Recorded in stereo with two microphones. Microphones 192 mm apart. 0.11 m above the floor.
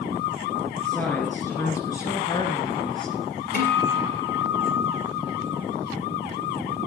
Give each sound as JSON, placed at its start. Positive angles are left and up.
{"t": 0.8, "sound": "a woman speaking", "side_deg": 5, "distance_m": 2.0}
{"t": 3.5, "sound": "a guitar", "side_deg": 55, "distance_m": 3.0}